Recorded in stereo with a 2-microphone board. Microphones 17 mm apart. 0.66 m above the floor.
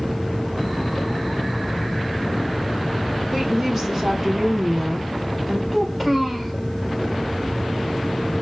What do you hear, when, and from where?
3.3 s a woman speaking: 35° right (ahead or behind), 3.5 m
5.7 s a child speaking: 20° right (ahead or behind), 2 m